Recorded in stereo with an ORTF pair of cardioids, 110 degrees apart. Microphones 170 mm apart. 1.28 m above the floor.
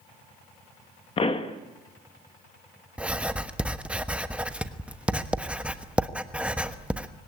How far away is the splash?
I don't hear a splash.